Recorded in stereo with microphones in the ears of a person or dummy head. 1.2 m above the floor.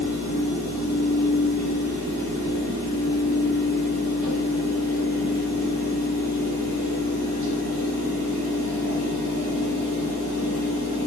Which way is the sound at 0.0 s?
40° right (ahead or behind).